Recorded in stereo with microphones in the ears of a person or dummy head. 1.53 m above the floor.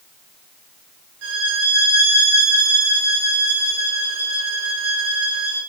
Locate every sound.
1.2 s a violin: 70° right (ahead or behind), 3.5 m